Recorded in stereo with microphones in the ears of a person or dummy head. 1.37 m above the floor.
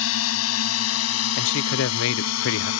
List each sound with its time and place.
0.0 s a drone: 75° left (ahead or behind); by 2.8 s 80° left
1.4 s a man speaking: 70° left (ahead or behind)